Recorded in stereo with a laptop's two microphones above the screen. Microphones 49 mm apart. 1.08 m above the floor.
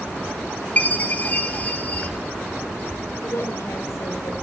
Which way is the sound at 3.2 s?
70° left (ahead or behind).